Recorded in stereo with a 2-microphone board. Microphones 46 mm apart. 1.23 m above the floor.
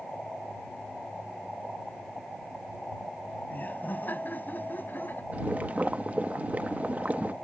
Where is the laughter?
40° left (ahead or behind); by 5.2 s 45° left (ahead or behind).